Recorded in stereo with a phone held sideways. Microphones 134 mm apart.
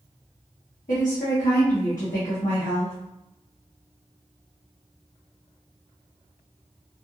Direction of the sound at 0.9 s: 85° left.